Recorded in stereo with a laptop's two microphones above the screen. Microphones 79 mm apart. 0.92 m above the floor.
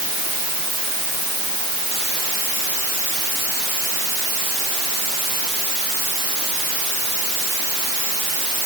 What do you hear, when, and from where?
Only background noise.